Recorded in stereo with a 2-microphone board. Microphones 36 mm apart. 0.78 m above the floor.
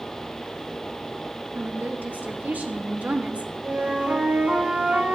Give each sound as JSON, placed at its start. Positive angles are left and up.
{"t": 1.5, "sound": "a woman speaking", "side_deg": -55, "distance_m": 2.0}
{"t": 3.6, "sound": "a flute", "side_deg": -40, "distance_m": 4.5}